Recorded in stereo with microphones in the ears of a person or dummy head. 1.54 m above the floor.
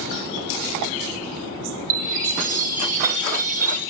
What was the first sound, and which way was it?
A chime, 40° right (ahead or behind).